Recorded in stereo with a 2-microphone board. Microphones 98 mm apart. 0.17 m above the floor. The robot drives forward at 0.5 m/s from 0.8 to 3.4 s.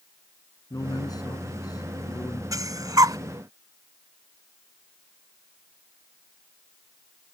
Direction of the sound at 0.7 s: 40° left (ahead or behind).